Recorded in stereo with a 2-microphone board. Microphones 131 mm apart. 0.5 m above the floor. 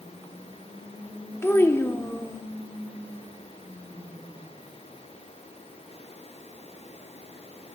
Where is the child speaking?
20° left (ahead or behind), 0.6 m.